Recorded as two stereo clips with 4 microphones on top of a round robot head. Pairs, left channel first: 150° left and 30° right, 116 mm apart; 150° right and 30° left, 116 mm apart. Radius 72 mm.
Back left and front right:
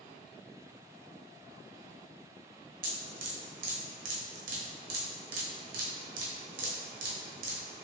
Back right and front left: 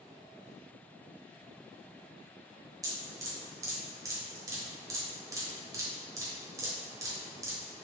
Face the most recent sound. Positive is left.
turn(degrees=-30)